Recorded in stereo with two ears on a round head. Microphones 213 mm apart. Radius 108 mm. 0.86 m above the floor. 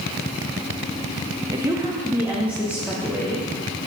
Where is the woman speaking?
15° right (ahead or behind), 1.0 m; by 3.5 s 5° right (ahead or behind), 2.5 m.